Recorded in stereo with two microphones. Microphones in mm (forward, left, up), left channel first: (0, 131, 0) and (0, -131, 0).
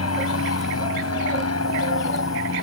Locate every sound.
0.0 s an aircraft: 65° left (ahead or behind)